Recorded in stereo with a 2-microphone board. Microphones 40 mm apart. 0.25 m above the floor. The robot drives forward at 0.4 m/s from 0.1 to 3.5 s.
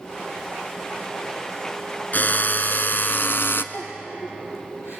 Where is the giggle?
75° left (ahead or behind), 5 m.